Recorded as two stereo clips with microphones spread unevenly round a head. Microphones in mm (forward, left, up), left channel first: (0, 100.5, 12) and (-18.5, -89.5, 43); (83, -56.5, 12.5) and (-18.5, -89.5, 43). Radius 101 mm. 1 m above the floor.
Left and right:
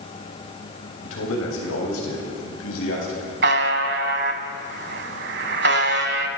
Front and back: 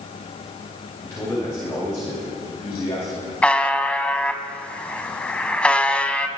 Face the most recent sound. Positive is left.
turn(degrees=-70)